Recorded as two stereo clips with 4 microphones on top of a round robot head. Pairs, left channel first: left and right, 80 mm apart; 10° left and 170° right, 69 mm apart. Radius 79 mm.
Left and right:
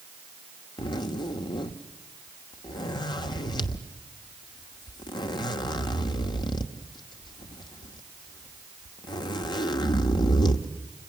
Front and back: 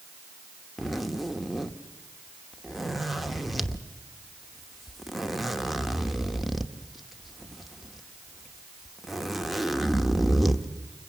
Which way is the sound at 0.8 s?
100° left.